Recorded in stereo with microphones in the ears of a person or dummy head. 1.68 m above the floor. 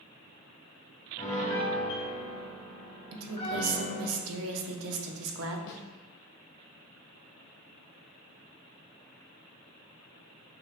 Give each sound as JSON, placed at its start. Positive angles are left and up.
{"t": 1.2, "sound": "a piano", "side_deg": 25, "distance_m": 1.2}
{"t": 3.1, "sound": "a woman speaking", "side_deg": -85, "distance_m": 0.8}
{"t": 5.7, "sound": "a snare drum", "side_deg": 65, "distance_m": 0.6}